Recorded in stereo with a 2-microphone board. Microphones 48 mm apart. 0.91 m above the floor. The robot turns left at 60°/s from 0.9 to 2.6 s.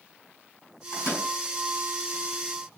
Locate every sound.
0.9 s a microwave: 75° left (ahead or behind), 5.5 m; by 1.3 s 85° left, 5.5 m